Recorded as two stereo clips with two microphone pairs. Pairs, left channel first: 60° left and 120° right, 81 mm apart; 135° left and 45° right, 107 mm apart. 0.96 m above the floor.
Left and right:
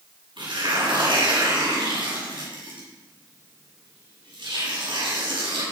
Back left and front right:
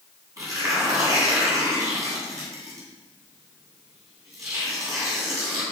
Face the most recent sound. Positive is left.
turn(degrees=-105)